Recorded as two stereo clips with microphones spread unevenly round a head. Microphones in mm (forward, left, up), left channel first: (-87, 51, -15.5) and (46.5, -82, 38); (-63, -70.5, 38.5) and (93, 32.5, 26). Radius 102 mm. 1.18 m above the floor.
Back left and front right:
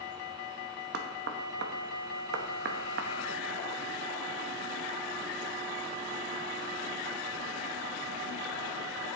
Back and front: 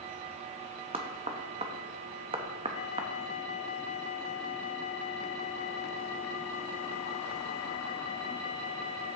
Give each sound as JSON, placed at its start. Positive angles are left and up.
{"t": 0.9, "sound": "knocking", "azimuth_deg": -30, "distance_m": 0.8}